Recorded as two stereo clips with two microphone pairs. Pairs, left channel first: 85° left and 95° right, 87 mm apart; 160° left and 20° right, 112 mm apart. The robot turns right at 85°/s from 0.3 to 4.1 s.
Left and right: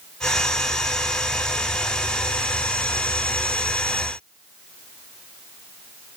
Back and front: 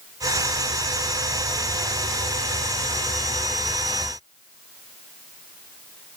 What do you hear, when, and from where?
Only background noise.